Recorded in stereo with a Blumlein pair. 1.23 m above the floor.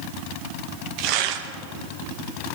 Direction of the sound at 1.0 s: 40° right.